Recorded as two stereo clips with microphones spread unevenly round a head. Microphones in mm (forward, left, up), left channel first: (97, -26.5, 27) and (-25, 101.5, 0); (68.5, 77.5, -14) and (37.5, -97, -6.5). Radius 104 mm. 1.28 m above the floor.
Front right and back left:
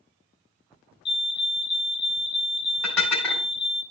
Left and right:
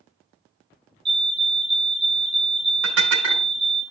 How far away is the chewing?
No chewing in this recording.